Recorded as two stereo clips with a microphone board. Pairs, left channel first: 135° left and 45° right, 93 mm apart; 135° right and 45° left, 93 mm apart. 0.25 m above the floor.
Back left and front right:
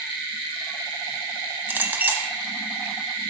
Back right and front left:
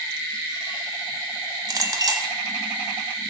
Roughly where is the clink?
Ahead.